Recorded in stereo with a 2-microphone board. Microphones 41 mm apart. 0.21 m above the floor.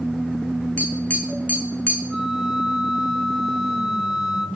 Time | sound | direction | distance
0.8 | tapping | 45° left (ahead or behind) | 3 m
2.1 | a flute | 5° right (ahead or behind) | 1.3 m